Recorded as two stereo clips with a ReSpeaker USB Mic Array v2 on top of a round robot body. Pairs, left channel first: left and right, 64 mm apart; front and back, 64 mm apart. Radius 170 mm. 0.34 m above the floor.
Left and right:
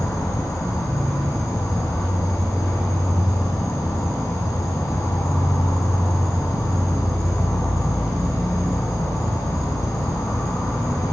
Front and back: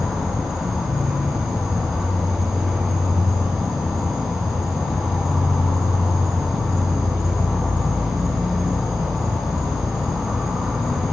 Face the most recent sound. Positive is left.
turn(degrees=95)